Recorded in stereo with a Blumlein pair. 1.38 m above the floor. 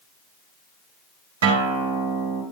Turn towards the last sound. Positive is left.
turn(degrees=-60)